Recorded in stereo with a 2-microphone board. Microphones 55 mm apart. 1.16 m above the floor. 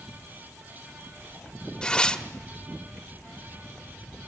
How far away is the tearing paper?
About 1.4 m.